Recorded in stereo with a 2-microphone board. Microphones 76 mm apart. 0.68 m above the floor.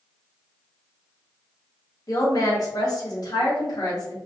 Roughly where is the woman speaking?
Left.